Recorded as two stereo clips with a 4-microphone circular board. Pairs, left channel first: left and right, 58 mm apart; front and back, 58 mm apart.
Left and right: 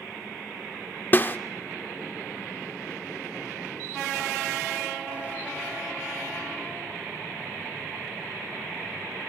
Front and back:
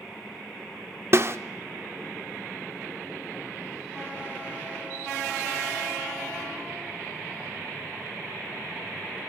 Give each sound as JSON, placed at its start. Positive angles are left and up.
{"t": 1.1, "sound": "a snare drum", "azimuth_deg": 140, "distance_m": 0.6}